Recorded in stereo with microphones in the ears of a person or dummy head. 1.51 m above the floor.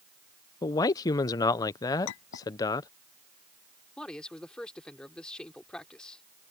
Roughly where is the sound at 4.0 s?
Centre.